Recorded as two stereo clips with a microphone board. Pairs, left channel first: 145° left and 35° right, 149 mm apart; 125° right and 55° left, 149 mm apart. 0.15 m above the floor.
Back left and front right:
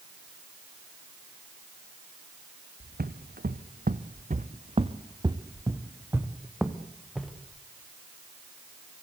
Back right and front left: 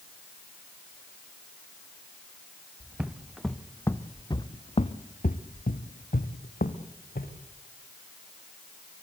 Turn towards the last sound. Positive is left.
turn(degrees=-125)